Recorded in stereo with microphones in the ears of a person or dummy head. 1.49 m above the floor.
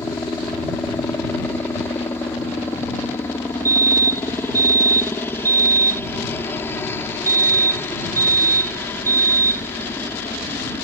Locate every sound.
0.0 s a helicopter: 15° left (ahead or behind)
3.6 s a fire alarm: 15° right (ahead or behind)